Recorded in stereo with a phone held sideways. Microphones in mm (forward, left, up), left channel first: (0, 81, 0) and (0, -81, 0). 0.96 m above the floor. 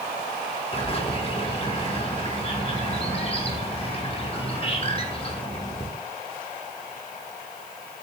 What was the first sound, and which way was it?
A bird, 35° left (ahead or behind).